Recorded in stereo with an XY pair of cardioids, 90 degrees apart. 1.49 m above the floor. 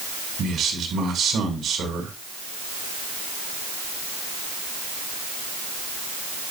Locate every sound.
0.4 s a man speaking: 65° right, 7 m